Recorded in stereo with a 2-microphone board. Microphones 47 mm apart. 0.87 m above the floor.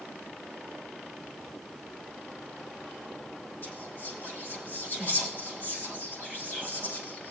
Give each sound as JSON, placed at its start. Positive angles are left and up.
{"t": 3.6, "sound": "whispering", "side_deg": 45, "distance_m": 6.0}